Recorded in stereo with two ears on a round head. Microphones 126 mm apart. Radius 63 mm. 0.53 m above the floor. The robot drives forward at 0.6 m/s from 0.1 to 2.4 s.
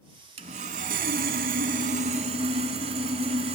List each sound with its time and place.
0.4 s sawing: 45° right (ahead or behind), 0.9 m